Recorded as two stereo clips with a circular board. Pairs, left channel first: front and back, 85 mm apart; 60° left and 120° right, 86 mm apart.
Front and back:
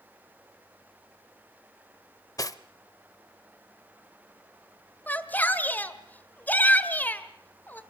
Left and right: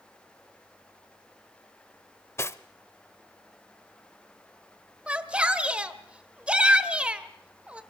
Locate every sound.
2.4 s cutlery clinking: 15° left, 0.6 m
5.1 s a shout: 50° right, 1.4 m